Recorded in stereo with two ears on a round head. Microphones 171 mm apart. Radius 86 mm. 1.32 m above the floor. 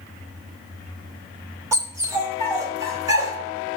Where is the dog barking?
15° right (ahead or behind), 2 m; by 3.4 s 20° right (ahead or behind), 1.3 m.